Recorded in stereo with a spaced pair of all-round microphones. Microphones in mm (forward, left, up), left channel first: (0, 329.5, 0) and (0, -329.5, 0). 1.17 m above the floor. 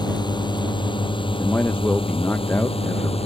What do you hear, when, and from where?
0.0 s a drone: 5° left (ahead or behind); by 3.3 s 10° left (ahead or behind)
1.4 s a man speaking: 5° left (ahead or behind)